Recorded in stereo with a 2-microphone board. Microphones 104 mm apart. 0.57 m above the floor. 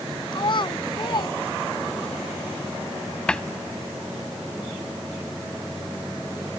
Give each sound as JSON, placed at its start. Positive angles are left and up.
{"t": 0.3, "sound": "a child speaking", "side_deg": 50}
{"t": 3.3, "sound": "a cupboard door", "side_deg": 10}